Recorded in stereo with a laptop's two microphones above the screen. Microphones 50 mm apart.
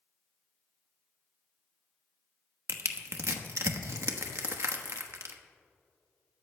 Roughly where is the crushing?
Right.